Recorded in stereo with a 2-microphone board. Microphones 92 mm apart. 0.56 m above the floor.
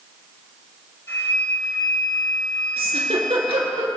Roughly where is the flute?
Left.